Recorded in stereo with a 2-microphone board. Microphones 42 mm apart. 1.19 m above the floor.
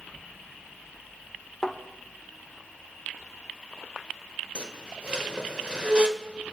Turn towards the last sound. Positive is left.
turn(degrees=-30)  # may be behind; listen again after turning